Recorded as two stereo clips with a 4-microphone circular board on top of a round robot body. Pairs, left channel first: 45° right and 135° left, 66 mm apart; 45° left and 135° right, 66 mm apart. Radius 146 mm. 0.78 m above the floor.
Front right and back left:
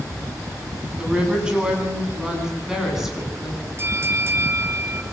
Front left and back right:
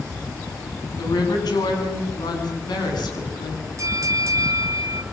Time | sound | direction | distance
1.0 | a woman speaking | 60° left | 7 m
3.8 | a bell | 175° right | 4 m